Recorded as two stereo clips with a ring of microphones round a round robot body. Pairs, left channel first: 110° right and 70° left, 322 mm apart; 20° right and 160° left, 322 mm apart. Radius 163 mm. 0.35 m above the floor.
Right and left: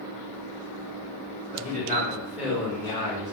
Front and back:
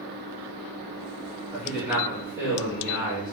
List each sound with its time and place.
1.5 s a man speaking: 65° left, 1.3 m; by 3.3 s 145° right, 1.3 m